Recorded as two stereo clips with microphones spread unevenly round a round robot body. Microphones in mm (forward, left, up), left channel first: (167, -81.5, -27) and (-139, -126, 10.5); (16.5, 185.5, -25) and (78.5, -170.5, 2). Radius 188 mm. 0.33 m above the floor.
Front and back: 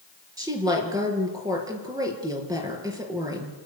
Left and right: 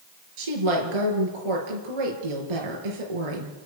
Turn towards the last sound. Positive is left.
turn(degrees=-90)